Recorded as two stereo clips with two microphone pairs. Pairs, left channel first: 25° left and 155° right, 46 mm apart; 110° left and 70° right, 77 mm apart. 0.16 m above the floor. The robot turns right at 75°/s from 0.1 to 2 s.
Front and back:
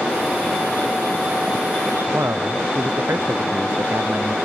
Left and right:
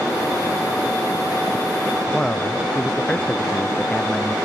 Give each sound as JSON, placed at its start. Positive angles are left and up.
{"t": 2.1, "sound": "a man speaking", "azimuth_deg": -170}